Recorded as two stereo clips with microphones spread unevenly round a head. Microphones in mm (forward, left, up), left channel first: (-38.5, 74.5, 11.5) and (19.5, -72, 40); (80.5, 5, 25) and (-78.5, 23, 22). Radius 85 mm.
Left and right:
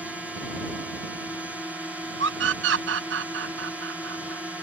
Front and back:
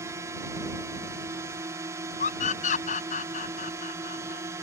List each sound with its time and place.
0.0 s a drone: 165° right
2.2 s a scream: 55° right